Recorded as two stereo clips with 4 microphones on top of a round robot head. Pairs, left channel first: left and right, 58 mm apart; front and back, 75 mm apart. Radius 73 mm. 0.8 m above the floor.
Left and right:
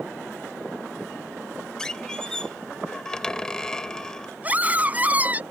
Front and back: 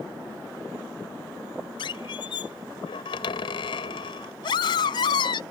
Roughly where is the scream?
Ahead right.